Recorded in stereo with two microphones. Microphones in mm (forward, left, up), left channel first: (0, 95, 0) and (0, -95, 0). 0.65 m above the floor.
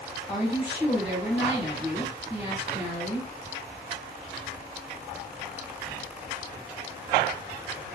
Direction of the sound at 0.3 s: 15° right (ahead or behind).